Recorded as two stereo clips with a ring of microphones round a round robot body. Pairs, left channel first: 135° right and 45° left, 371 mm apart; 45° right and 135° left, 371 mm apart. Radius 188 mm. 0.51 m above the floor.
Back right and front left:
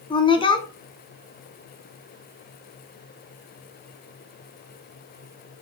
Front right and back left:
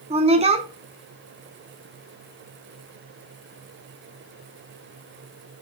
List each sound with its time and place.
0.1 s a woman speaking: 175° left, 0.9 m